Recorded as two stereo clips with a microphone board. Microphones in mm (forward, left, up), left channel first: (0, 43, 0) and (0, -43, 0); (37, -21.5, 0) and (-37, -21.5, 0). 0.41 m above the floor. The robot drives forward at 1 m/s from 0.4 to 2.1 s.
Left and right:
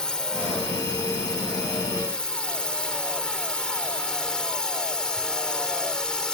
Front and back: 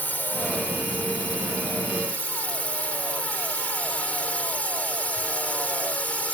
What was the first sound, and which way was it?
A drone, 20° left.